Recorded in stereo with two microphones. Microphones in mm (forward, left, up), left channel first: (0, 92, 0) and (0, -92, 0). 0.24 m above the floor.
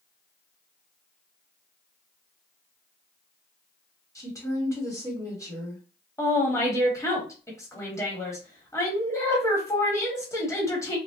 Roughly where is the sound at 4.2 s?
Centre.